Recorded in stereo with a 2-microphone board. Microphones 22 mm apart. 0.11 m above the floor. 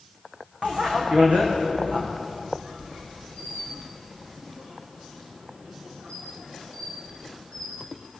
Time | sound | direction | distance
0.6 | a bicycle bell | 65° right (ahead or behind) | 6 m
2.2 | a squeak | 75° right (ahead or behind) | 5.5 m